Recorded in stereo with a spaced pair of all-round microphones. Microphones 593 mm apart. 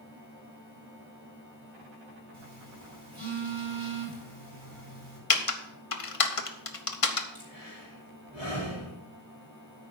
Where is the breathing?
80° left, 3.5 m.